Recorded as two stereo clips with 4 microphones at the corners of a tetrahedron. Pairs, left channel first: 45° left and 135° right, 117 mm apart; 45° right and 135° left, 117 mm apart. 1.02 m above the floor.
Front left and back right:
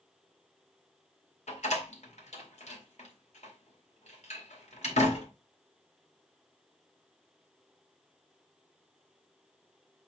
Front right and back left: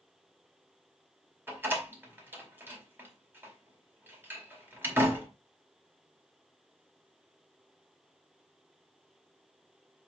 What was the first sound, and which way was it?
A door slam, 60° left.